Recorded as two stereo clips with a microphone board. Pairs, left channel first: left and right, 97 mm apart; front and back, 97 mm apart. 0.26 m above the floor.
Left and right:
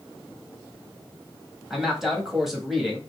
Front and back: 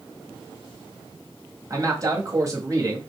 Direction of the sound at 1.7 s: 175° right.